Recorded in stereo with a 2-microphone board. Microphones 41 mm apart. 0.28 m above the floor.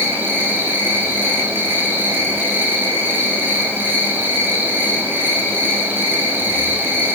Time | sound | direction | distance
0.0 | an insect | 65° right (ahead or behind) | 5 m